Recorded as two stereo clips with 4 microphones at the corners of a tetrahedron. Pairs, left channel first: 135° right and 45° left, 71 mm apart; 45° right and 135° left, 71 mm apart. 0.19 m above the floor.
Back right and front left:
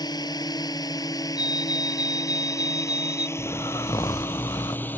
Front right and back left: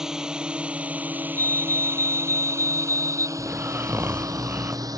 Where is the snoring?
165° right.